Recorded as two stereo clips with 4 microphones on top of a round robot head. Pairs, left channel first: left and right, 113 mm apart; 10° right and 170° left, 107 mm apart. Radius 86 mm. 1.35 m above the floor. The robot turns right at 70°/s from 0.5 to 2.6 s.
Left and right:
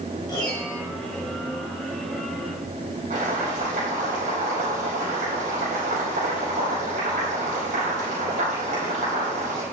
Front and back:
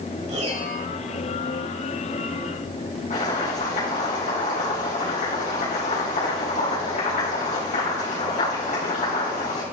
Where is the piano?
145° left, 4.5 m; by 0.8 s 165° left, 4.5 m.